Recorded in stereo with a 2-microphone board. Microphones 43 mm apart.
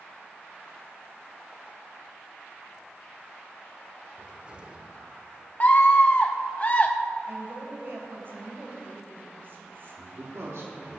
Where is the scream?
40° left (ahead or behind), 0.8 m.